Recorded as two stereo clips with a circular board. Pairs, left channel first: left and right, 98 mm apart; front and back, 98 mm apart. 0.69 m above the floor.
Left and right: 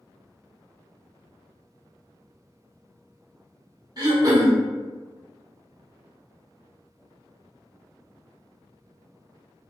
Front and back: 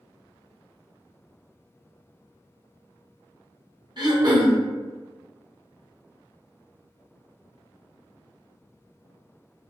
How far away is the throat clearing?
About 0.7 m.